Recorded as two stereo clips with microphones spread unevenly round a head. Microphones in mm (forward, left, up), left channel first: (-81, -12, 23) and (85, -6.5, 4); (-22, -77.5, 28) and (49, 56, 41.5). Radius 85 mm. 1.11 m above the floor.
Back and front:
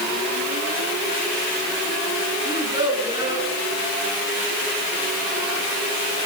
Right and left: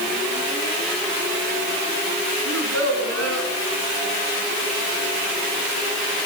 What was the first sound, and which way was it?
A child speaking, 70° left.